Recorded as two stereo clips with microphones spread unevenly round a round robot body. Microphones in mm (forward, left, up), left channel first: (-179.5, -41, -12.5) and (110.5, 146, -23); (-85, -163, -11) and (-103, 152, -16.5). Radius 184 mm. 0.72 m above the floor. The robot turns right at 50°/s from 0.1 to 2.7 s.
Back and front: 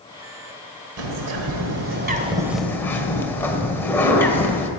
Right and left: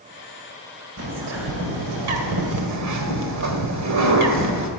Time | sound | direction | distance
1.0 | a bird | 40° left | 1.6 m